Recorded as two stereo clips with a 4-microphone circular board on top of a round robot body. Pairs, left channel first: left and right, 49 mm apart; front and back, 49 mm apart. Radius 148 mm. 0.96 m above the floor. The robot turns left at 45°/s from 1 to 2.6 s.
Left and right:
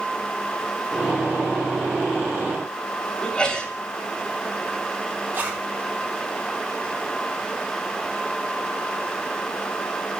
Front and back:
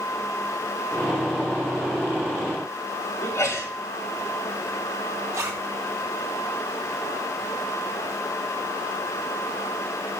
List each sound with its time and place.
3.2 s a sneeze: 20° left, 3 m
5.3 s a zipper: 145° right, 1.0 m